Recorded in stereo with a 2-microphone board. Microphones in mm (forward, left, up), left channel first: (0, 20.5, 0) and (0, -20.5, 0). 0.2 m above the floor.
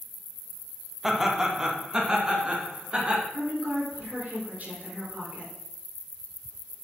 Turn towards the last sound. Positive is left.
turn(degrees=-45)  # may be behind; listen again after turning